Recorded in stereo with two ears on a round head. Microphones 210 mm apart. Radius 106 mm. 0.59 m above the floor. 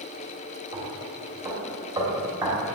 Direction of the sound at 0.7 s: 15° right (ahead or behind).